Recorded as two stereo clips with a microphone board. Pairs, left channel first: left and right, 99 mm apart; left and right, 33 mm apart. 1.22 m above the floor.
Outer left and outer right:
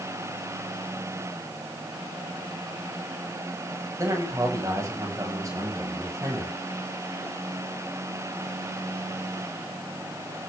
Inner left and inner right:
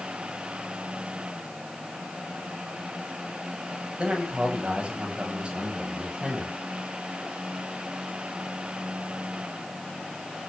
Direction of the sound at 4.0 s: 30° right (ahead or behind).